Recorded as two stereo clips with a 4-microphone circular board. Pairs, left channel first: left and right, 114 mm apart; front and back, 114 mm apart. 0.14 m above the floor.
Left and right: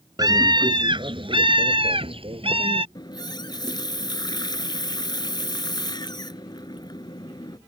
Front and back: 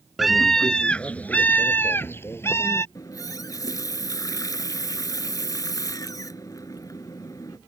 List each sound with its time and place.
0.2 s a scream: 90° right; by 2.9 s 65° right
3.0 s a running tap: 50° left